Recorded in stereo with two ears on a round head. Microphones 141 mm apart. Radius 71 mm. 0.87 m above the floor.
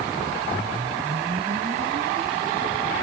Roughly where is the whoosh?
Right.